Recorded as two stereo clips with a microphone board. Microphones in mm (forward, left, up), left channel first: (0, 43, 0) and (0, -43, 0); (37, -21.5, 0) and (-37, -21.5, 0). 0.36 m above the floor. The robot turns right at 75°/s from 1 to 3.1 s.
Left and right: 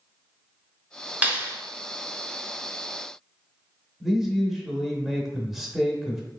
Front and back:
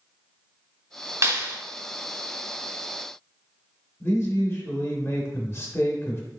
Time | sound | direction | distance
1.2 | a clap | 150° right | 0.9 m
4.0 | a man speaking | 5° right | 1.0 m